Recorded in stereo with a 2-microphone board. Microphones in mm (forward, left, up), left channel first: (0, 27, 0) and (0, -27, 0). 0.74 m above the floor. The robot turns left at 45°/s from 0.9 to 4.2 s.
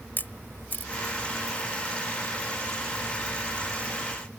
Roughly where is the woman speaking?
I don't hear a woman speaking.